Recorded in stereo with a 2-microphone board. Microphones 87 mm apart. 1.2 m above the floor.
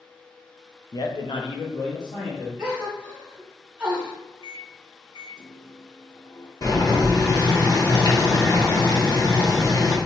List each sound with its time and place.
0.9 s a man speaking: 45° left (ahead or behind), 0.5 m
2.6 s a gasp: 15° right (ahead or behind), 1.4 m
4.4 s a microwave: 55° left (ahead or behind), 0.6 m
6.6 s boiling: 45° left (ahead or behind), 1.1 m